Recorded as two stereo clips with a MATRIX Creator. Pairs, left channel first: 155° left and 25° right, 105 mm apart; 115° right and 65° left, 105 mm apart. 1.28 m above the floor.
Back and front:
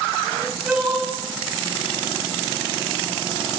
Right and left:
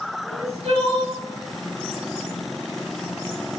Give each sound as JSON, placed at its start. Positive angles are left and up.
{"t": 0.2, "sound": "crying", "azimuth_deg": 65, "distance_m": 5.5}